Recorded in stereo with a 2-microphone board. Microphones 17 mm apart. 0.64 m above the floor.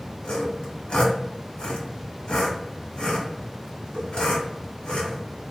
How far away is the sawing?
About 1.2 m.